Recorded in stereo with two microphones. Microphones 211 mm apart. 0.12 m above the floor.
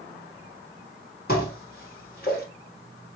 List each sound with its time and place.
1.3 s dishes clattering: 45° left (ahead or behind), 1.9 m